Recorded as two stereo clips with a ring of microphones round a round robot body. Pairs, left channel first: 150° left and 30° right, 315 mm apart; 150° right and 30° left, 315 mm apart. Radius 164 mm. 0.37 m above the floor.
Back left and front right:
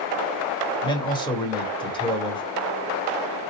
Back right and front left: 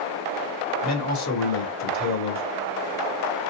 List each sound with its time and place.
0.8 s a man speaking: 140° right, 1.6 m